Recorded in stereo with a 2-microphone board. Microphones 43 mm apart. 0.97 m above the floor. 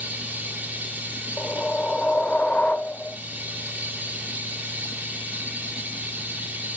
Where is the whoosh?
35° left (ahead or behind), 0.8 m.